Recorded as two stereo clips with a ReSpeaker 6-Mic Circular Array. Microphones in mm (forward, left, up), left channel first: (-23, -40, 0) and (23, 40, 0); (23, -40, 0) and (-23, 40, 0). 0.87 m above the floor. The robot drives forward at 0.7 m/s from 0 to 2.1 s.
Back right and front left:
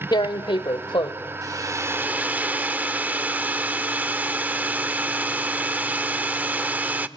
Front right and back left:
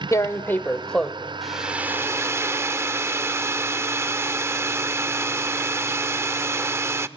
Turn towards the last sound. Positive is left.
turn(degrees=110)